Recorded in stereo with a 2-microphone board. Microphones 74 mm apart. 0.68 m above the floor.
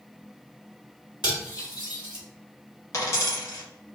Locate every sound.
1.2 s cutlery clinking: 70° left (ahead or behind), 1.6 m
2.9 s a dropped coin: 50° left (ahead or behind), 1.3 m